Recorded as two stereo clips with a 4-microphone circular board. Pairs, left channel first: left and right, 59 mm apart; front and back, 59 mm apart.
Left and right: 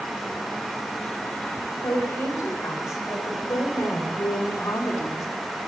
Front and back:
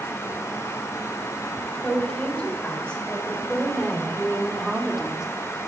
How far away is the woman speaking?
About 3 m.